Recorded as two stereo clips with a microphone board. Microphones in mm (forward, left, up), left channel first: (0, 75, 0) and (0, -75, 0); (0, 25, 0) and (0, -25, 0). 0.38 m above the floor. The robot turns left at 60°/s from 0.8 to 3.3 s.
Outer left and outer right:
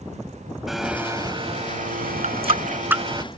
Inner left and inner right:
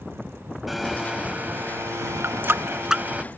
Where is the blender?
Straight ahead; by 3.2 s 150° right.